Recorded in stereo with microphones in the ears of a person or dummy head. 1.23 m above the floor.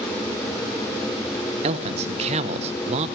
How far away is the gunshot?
No gunshot in this recording.